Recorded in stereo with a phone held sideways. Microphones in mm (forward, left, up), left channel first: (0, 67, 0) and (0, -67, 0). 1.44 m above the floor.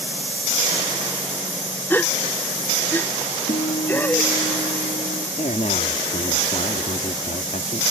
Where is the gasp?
15° left (ahead or behind).